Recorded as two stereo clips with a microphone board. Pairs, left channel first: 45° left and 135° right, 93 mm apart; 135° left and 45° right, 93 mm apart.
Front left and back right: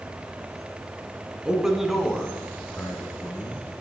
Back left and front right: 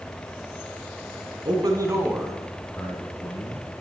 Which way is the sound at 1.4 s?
55° right.